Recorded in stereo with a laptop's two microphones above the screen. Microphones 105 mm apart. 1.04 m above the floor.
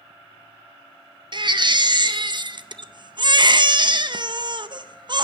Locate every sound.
1.3 s a baby crying: 45° right (ahead or behind), 0.6 m